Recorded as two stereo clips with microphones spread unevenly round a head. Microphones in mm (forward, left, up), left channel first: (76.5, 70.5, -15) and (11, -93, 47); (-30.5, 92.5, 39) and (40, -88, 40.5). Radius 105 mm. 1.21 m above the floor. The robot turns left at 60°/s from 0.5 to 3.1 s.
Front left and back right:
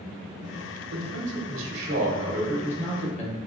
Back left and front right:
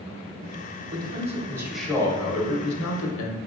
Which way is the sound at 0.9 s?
105° right.